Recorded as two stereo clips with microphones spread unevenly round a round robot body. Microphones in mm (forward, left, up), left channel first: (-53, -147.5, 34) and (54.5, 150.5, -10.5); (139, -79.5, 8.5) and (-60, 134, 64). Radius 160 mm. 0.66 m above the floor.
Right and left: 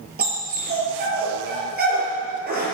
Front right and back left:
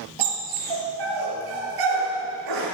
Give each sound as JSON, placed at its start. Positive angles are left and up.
{"t": 0.2, "sound": "a dog barking", "azimuth_deg": 135, "distance_m": 7.0}